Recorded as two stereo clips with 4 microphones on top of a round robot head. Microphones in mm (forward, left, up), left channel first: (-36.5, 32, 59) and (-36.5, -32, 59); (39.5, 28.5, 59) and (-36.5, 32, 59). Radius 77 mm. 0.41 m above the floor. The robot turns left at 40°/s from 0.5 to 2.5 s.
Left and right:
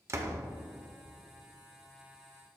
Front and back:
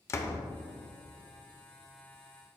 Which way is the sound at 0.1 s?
50° right.